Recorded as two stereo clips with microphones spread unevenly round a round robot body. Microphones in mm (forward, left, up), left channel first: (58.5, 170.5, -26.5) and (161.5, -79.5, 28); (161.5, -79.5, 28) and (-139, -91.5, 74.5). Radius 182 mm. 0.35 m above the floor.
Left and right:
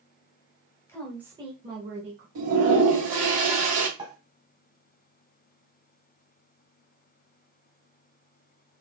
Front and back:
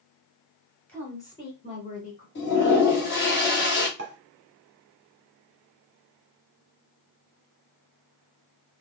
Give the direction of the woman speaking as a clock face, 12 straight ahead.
10 o'clock.